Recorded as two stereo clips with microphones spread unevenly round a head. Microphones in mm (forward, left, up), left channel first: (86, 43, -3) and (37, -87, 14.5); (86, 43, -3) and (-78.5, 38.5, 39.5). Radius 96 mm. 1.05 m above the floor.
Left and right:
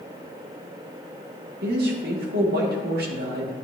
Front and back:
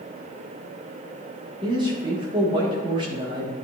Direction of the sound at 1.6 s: 110° right.